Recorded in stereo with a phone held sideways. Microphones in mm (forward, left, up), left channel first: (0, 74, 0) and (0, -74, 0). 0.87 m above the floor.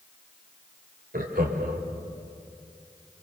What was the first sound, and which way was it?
Laughter, 80° right.